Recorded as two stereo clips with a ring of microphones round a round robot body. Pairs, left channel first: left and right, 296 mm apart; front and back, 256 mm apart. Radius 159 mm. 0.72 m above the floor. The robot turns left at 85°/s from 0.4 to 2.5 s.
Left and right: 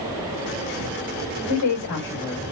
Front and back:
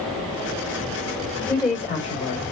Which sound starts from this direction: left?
A woman speaking, at 1.5 s.